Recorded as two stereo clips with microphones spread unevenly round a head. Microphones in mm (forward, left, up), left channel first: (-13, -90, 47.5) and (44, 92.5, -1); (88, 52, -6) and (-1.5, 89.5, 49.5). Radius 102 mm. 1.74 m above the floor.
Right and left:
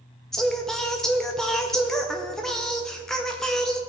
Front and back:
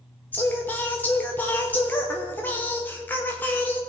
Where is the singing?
155° right, 0.6 m.